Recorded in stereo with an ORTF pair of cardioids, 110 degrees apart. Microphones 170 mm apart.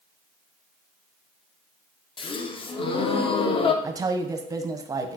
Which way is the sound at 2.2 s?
30° left.